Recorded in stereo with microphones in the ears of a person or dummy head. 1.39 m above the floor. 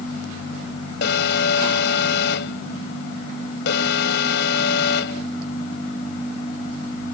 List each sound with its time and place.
1.0 s an alarm: 70° left (ahead or behind)